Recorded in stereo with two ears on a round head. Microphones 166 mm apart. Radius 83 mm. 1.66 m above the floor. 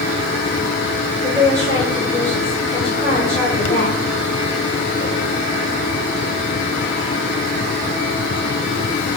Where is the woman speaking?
15° left (ahead or behind), 3.5 m.